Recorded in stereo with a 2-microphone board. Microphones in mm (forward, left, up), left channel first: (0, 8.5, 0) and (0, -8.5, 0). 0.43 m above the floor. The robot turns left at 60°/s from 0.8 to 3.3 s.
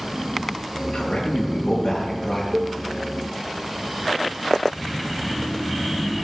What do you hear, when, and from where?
0.9 s a man speaking: 115° left, 7 m; by 2.4 s 25° left, 7 m
2.5 s a cowbell: 50° right (ahead or behind), 0.6 m; by 2.8 s 60° right (ahead or behind), 0.6 m